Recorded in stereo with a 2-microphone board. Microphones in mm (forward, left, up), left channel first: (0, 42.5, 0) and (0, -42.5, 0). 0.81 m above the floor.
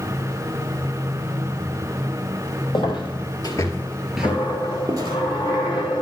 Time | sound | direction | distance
2.7 | footsteps | 70° left (ahead or behind) | 2.0 m
4.2 | a dropped coin | 75° left (ahead or behind) | 2 m